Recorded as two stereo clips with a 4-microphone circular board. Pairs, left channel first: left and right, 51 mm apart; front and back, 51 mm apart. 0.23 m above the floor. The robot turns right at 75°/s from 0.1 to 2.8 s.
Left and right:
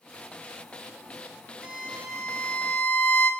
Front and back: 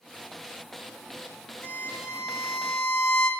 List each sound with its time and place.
1.6 s a violin: 45° right, 2.0 m; by 3.3 s 45° left, 2.0 m